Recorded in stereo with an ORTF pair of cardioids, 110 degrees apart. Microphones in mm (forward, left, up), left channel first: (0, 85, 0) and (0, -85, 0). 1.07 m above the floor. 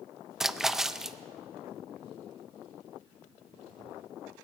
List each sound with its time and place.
0.4 s a splash: straight ahead, 0.5 m